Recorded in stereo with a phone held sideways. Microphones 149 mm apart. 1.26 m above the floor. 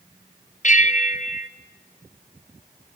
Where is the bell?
55° left (ahead or behind), 1.0 m.